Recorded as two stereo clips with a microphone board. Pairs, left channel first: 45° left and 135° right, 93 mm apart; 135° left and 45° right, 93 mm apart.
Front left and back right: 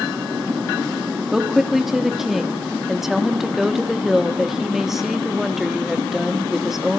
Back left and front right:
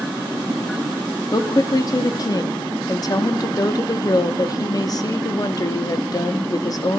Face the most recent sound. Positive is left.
turn(degrees=140)